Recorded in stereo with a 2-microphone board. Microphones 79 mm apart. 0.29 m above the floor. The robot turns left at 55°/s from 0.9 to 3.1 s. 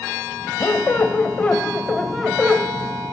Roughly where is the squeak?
Ahead left.